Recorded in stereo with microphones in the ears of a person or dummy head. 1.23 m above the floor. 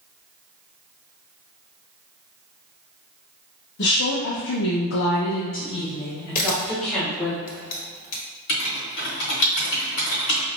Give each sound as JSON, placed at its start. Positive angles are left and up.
{"t": 3.8, "sound": "a woman speaking", "side_deg": 75, "distance_m": 1.0}
{"t": 6.3, "sound": "a camera shutter", "side_deg": 50, "distance_m": 1.1}
{"t": 8.5, "sound": "writing", "side_deg": 55, "distance_m": 1.5}